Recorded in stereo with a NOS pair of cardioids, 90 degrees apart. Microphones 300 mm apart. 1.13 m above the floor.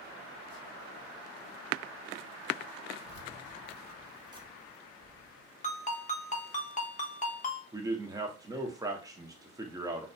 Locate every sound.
3.0 s keys jangling: 40° left, 0.8 m; by 5.5 s 50° right, 1.1 m
5.6 s a ringtone: 25° left, 0.7 m
7.7 s a man speaking: 10° right, 0.8 m